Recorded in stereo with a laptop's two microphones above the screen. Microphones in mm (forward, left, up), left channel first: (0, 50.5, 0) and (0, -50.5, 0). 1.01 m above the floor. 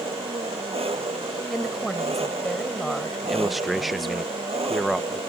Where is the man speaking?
Centre (ahead or behind).